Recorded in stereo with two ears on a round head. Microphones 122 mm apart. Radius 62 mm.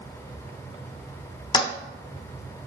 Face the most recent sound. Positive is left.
turn(degrees=30)  # may be behind; listen again after turning